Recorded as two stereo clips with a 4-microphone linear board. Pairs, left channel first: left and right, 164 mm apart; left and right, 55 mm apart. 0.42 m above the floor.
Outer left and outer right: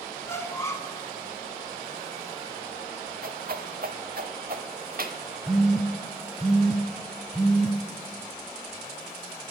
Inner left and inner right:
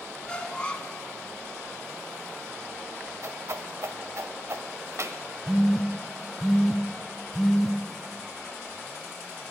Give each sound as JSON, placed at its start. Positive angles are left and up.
{"t": 0.2, "sound": "a squeak", "side_deg": 15, "distance_m": 1.3}
{"t": 3.2, "sound": "a whoosh", "side_deg": -65, "distance_m": 0.9}
{"t": 5.5, "sound": "a phone buzzing", "side_deg": 0, "distance_m": 0.9}